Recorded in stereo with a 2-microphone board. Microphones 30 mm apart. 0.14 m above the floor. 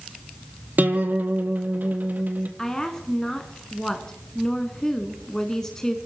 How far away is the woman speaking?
About 1.1 m.